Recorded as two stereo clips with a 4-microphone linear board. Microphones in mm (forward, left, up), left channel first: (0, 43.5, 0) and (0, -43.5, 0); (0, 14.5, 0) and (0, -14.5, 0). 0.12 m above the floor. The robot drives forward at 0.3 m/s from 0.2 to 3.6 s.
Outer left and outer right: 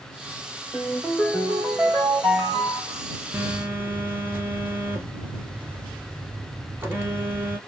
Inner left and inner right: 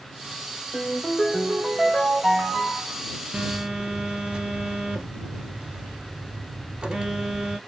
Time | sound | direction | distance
0.7 | a ringtone | 5° left (ahead or behind) | 2.5 m
3.3 | a phone buzzing | 25° right (ahead or behind) | 1.0 m